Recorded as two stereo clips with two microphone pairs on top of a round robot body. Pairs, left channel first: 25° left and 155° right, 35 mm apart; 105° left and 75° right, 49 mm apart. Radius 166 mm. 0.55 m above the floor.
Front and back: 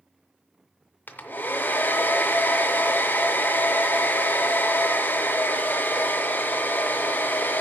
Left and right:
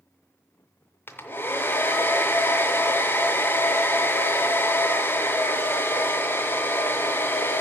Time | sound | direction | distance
1.1 | a hair dryer | 55° left | 0.5 m